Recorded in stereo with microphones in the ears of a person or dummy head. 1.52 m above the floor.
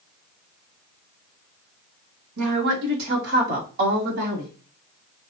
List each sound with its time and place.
2.4 s a woman speaking: 70° right (ahead or behind), 1.5 m; by 4.5 s 55° right (ahead or behind), 3 m